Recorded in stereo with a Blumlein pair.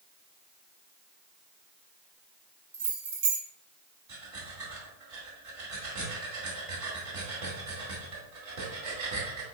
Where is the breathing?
40° right, 2 m.